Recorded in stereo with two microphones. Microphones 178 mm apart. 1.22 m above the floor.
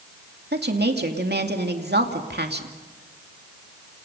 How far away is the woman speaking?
About 2.5 m.